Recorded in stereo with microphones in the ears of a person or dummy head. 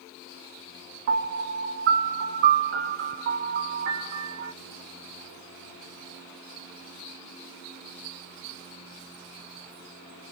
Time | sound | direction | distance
1.1 | a piano | 60° right (ahead or behind) | 1.0 m